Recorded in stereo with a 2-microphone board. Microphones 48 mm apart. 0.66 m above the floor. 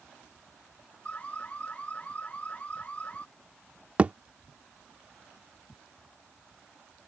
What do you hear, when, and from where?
1.1 s an alarm: 30° left (ahead or behind)
4.0 s a thud: 30° right (ahead or behind)